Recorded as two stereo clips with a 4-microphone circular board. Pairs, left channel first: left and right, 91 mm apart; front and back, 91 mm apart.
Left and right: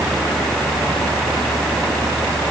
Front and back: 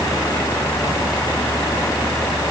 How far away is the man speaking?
No man speaking in this recording.